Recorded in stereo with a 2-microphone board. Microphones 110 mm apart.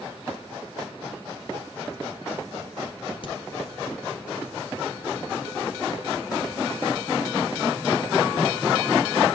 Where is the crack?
50° left (ahead or behind), 2 m.